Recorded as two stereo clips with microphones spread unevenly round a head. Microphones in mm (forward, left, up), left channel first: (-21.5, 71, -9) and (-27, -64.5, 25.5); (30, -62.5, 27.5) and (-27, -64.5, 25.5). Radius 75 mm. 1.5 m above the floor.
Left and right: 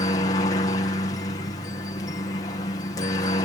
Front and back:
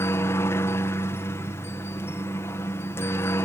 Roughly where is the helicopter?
Ahead left.